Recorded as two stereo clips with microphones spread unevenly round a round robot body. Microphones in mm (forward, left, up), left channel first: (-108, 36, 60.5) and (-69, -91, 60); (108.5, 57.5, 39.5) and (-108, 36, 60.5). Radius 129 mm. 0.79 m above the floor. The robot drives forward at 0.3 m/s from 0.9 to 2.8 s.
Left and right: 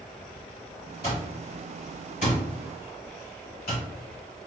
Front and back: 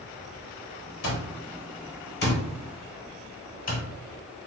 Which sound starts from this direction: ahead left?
An alarm clock, at 1.0 s.